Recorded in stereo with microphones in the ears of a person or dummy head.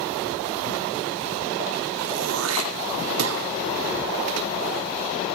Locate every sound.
2.0 s throat clearing: 75° right (ahead or behind), 1.9 m